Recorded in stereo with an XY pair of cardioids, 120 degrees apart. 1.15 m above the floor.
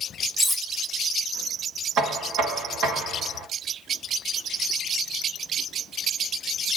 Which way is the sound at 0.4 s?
5° right.